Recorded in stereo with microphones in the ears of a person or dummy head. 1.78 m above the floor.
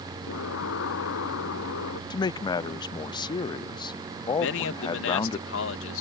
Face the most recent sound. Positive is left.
turn(degrees=75)  # may be behind; listen again after turning